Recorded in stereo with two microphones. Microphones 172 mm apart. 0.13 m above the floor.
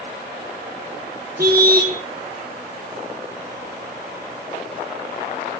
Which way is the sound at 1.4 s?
60° right (ahead or behind).